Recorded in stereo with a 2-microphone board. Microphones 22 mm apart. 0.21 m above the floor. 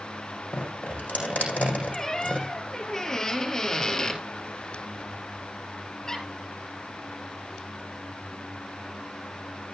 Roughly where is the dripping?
Left.